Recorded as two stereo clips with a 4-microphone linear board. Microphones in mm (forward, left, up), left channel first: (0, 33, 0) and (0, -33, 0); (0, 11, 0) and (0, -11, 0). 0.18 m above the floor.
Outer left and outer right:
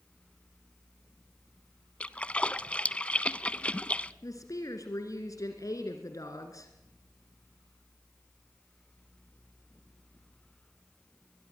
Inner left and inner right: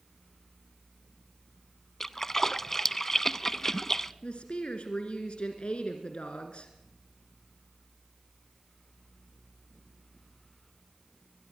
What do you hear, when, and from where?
2.0 s a splash: 20° left (ahead or behind), 0.5 m
4.2 s a woman speaking: 60° left (ahead or behind), 2 m